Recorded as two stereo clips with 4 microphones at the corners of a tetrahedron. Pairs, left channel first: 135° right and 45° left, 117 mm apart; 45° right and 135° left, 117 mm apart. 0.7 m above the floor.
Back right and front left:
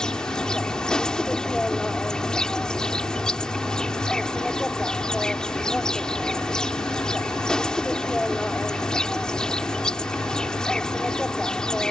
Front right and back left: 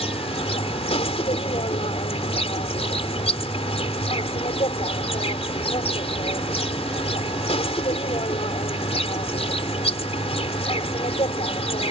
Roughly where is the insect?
Ahead right.